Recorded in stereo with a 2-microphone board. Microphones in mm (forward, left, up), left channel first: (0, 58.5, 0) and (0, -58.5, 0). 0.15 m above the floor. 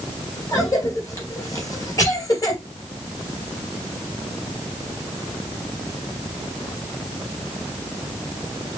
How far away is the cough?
About 2.5 m.